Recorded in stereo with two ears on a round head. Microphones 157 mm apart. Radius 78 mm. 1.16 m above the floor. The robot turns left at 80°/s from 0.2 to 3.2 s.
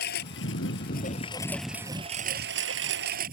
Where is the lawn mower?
115° left; by 3.3 s 125° right.